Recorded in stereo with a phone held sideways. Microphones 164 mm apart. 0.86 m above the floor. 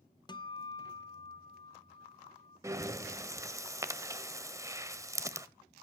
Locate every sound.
0.3 s a guitar: 25° left (ahead or behind), 0.6 m
2.6 s breathing: 20° right (ahead or behind), 0.9 m